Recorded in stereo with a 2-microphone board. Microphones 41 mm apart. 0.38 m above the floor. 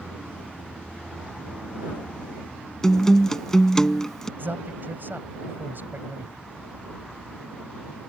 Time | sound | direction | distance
2.8 | a guitar | 15° left (ahead or behind) | ?
4.4 | a man speaking | 55° right (ahead or behind) | ?